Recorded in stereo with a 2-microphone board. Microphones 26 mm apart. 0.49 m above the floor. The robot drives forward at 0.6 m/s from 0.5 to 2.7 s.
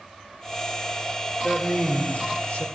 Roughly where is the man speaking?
Left.